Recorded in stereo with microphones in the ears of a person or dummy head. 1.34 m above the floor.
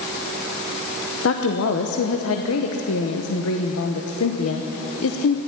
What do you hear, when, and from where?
1.2 s a woman speaking: 75° left (ahead or behind), 1.1 m